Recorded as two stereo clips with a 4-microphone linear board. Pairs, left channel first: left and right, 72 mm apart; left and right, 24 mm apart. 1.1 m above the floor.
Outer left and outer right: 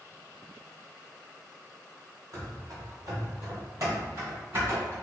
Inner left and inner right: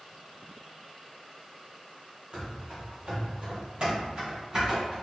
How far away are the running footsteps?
About 1.8 m.